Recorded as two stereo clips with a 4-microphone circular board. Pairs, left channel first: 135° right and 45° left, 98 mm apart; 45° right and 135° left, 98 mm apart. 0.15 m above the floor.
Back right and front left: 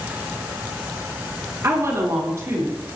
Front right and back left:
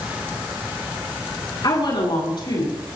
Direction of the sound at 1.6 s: 15° right.